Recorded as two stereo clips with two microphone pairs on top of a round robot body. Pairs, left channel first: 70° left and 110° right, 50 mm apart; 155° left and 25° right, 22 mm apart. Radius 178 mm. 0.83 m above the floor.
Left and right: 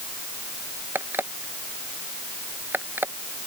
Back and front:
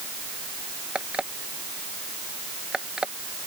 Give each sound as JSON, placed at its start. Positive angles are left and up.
{"t": 0.9, "sound": "an alarm clock", "azimuth_deg": -65}